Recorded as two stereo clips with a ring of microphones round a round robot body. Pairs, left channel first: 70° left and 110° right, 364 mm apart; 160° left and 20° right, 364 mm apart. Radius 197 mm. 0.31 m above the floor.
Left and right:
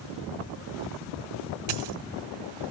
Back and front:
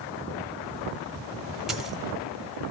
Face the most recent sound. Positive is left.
turn(degrees=-110)